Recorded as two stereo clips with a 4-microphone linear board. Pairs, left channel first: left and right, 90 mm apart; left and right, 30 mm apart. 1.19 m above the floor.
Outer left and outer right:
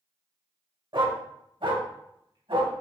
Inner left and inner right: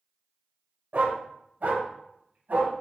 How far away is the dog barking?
About 2.0 m.